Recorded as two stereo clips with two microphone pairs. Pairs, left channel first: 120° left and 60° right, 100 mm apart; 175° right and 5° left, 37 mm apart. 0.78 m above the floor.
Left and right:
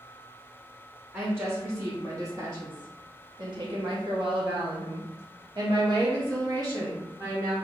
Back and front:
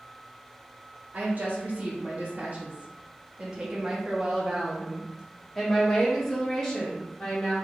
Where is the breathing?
No breathing in this recording.